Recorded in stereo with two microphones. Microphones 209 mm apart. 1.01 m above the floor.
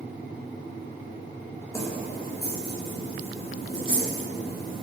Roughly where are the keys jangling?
Centre.